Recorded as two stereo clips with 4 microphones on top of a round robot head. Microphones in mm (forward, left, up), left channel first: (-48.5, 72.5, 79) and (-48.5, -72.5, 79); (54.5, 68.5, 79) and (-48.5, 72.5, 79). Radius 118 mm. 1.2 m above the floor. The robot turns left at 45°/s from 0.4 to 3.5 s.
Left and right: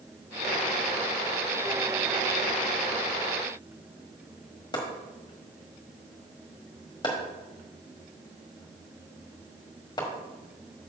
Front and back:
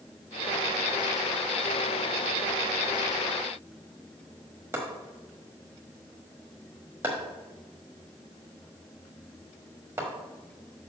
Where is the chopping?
130° left, 1.1 m.